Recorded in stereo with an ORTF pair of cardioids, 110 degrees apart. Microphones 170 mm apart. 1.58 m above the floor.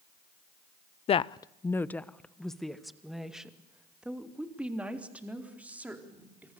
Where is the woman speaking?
40° left, 0.6 m; by 6.6 s 10° right, 4.5 m.